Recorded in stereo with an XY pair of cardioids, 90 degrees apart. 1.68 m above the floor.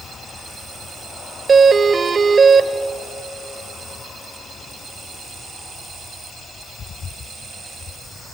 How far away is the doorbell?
About 0.9 m.